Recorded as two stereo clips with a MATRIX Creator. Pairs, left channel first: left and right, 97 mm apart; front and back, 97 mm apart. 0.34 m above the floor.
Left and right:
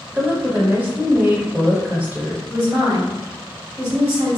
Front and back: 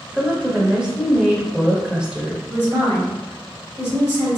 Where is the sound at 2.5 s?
145° right, 2.0 m.